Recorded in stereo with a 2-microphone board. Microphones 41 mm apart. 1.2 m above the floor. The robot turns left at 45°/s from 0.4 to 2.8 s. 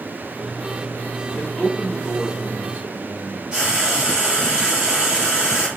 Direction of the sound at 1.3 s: 25° left.